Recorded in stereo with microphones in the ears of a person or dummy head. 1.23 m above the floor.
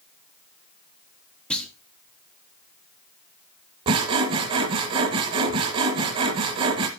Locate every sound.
1.5 s a clunk: 5° left (ahead or behind), 1.1 m
3.9 s sawing: 25° right (ahead or behind), 1.2 m